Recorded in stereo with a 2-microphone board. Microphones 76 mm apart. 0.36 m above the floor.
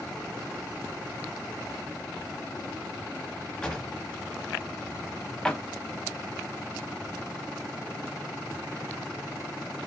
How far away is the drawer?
About 0.5 m.